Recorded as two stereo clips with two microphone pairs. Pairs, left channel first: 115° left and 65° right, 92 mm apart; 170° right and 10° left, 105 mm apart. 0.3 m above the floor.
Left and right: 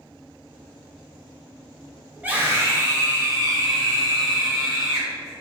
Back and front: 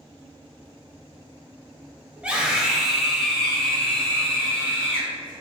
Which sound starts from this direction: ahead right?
A scream, at 2.2 s.